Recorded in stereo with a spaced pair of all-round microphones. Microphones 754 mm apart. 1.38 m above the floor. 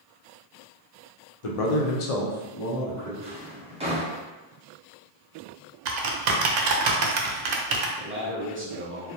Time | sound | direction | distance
1.4 | a man speaking | 50° left (ahead or behind) | 0.6 m
3.2 | a drawer | 10° right (ahead or behind) | 0.6 m
5.8 | typing on a keyboard | 80° right | 0.6 m
8.0 | a man speaking | 20° right (ahead or behind) | 0.6 m